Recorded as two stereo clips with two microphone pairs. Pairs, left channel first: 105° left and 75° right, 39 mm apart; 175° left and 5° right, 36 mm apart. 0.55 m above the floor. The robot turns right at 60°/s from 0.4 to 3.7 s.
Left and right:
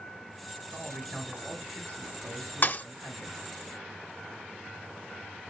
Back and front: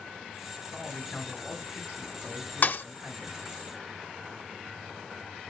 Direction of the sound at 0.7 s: 160° right.